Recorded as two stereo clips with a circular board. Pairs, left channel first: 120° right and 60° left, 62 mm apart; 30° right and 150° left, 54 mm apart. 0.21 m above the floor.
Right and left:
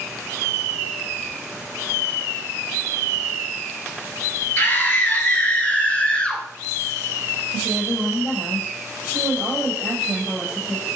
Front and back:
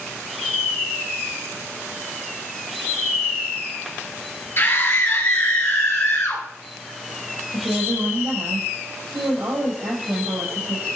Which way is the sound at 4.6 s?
70° right.